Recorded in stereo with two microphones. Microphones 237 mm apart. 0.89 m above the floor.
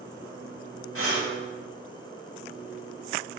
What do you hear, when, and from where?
0.9 s breathing: 75° right (ahead or behind), 4 m